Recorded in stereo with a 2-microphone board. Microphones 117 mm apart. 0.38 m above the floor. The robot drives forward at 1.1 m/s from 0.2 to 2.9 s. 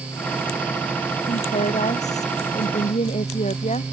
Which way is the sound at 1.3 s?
75° left (ahead or behind).